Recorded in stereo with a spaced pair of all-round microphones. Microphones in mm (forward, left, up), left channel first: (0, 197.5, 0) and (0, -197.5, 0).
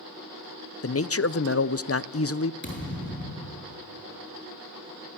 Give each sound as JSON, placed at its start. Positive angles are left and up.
{"t": 0.8, "sound": "a man speaking", "side_deg": 35, "distance_m": 0.6}
{"t": 2.6, "sound": "a thud", "side_deg": 30, "distance_m": 9.0}